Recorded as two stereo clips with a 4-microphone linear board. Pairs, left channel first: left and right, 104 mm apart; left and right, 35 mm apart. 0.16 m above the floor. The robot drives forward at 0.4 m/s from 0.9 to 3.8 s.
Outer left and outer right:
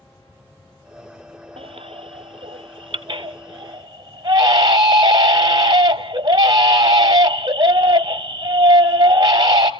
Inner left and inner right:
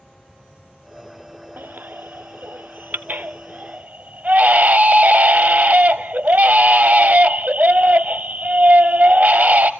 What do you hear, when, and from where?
1.6 s a baby crying: 65° right (ahead or behind), 0.9 m; by 9.7 s 40° right (ahead or behind), 1.3 m